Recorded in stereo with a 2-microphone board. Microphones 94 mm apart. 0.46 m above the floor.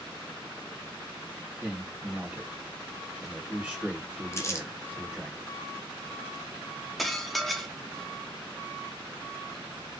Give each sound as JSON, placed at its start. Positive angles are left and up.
{"t": 1.6, "sound": "a man speaking", "side_deg": -20, "distance_m": 1.5}
{"t": 4.3, "sound": "crumpling", "side_deg": 30, "distance_m": 0.6}
{"t": 7.0, "sound": "dishes clattering", "side_deg": 0, "distance_m": 0.6}